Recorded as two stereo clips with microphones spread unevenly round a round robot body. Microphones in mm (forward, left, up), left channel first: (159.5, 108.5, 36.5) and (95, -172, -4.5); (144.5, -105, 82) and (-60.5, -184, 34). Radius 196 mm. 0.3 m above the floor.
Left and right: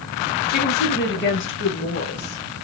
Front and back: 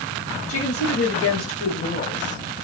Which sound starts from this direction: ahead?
A woman speaking, at 0.5 s.